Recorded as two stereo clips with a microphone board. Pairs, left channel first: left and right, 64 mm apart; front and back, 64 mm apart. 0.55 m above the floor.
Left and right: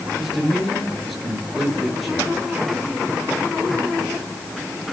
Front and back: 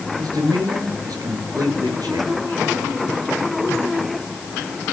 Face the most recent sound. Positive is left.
turn(degrees=180)